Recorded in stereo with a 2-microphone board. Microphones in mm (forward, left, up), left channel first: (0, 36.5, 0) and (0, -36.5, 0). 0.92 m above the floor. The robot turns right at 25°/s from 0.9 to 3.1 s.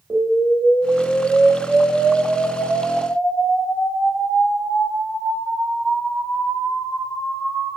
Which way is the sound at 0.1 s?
40° right.